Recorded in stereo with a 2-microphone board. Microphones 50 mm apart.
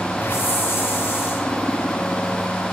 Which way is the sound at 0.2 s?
40° left (ahead or behind).